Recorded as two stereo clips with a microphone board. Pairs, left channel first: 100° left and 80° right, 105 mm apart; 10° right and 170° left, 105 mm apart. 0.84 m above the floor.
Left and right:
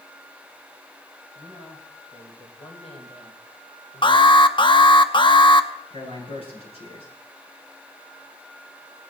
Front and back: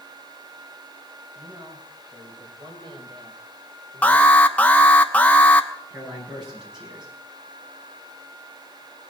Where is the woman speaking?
120° left, 4.5 m; by 4.5 s 140° left, 2 m.